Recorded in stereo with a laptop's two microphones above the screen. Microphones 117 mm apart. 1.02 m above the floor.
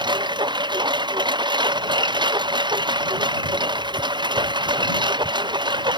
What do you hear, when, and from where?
0.0 s a lawn mower: 40° right (ahead or behind)